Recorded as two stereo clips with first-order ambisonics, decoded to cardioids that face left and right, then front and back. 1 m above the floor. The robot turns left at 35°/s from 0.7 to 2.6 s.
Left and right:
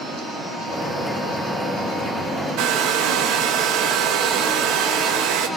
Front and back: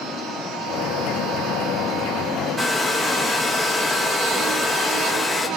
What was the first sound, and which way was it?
A hair dryer, 90° right.